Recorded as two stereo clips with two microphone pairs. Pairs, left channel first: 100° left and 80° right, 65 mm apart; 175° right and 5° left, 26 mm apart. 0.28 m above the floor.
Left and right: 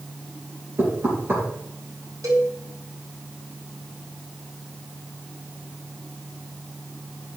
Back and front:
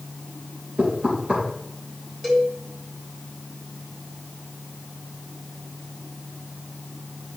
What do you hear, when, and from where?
0.8 s knocking: 30° right, 3.5 m
2.2 s a cowbell: 70° right, 3 m